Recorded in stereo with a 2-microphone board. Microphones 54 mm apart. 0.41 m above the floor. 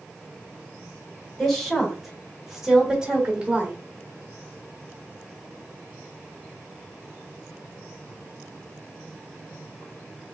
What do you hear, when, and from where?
1.4 s a woman speaking: 5° left (ahead or behind), 1.8 m; by 3.8 s 25° right (ahead or behind), 1.1 m